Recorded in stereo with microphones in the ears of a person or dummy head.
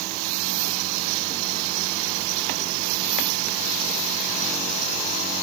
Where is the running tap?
No running tap in this recording.